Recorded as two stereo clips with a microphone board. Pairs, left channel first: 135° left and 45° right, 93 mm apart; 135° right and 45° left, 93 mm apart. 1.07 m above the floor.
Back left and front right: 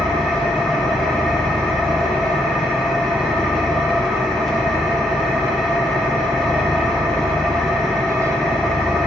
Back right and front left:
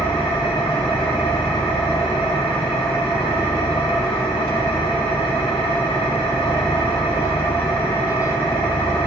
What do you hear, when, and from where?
0.0 s an engine running: 140° right, 2.0 m